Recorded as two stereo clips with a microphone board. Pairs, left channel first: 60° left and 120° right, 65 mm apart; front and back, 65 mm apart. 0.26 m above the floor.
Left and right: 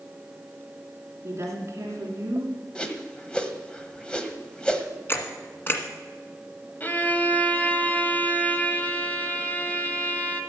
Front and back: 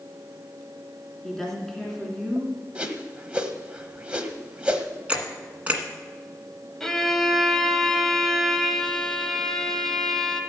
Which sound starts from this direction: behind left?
A whoosh, at 2.8 s.